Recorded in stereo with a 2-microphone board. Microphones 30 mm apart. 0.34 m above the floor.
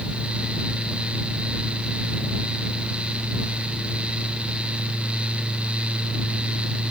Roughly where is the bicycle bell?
I don't hear a bicycle bell.